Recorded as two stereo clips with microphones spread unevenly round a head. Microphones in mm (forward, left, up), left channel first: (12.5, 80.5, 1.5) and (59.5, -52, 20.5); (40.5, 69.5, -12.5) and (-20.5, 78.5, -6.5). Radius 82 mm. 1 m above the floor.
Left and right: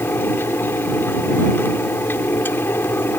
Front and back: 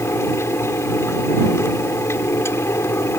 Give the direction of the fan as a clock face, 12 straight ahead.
11 o'clock.